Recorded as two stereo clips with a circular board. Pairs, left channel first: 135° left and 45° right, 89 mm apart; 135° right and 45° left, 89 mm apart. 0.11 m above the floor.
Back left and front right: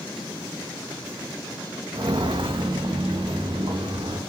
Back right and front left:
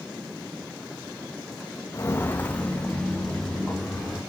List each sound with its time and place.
1.9 s footsteps: 80° right, 0.5 m; by 4.2 s 50° right, 1.9 m